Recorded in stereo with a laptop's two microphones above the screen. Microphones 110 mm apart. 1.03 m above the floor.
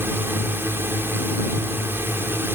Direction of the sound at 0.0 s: 20° right (ahead or behind).